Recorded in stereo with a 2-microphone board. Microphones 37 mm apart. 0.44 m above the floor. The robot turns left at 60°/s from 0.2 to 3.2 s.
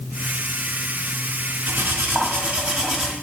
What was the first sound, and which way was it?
Cutlery clinking, 90° right.